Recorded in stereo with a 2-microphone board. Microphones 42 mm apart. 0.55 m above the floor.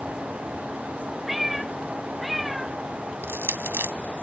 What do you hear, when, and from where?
1.3 s a cat meowing: 5° right (ahead or behind)
3.2 s crushing: 65° right (ahead or behind)